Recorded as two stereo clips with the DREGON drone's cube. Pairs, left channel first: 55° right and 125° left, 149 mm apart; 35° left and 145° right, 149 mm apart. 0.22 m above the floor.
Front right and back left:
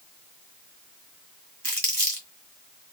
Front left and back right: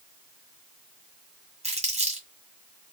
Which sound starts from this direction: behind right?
Crumpling, at 1.6 s.